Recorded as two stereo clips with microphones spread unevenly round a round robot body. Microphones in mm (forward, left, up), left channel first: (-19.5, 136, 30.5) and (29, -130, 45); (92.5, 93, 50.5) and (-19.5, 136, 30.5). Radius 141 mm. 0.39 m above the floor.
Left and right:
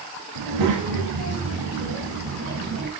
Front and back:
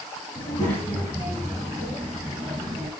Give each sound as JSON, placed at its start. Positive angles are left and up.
{"t": 0.3, "sound": "a child speaking", "azimuth_deg": -90, "distance_m": 2.5}